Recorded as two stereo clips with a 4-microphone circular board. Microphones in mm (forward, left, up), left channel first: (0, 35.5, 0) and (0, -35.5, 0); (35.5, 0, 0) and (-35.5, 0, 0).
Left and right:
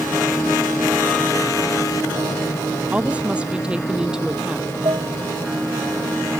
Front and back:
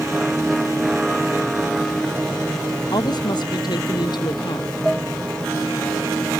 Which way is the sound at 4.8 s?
80° right.